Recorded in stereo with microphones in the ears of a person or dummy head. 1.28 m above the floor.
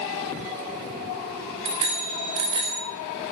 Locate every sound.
1.6 s a bicycle bell: 30° right (ahead or behind), 3.5 m